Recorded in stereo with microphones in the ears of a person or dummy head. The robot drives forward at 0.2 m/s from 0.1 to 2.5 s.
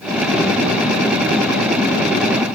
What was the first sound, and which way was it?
Only background noise.